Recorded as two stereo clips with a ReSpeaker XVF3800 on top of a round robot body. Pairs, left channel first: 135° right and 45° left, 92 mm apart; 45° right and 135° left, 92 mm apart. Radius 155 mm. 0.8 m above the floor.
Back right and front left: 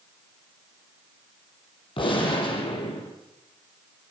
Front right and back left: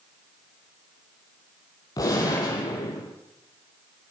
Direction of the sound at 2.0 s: 100° right.